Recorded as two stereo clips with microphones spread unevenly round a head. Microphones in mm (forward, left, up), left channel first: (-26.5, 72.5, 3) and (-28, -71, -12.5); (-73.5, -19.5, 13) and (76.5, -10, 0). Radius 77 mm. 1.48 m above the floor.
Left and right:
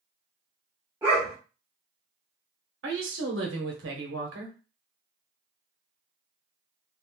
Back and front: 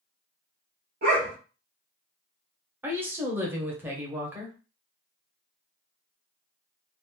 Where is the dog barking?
15° right, 1.4 m.